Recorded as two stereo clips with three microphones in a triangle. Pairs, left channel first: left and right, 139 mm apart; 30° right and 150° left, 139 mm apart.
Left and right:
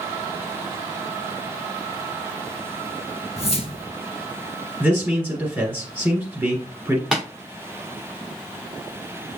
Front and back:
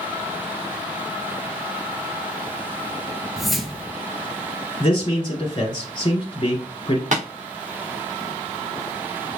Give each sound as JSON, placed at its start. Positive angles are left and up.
{"t": 3.4, "sound": "a whoosh", "azimuth_deg": 60, "distance_m": 0.6}
{"t": 4.8, "sound": "a man speaking", "azimuth_deg": -25, "distance_m": 1.6}
{"t": 7.1, "sound": "tapping", "azimuth_deg": 180, "distance_m": 2.5}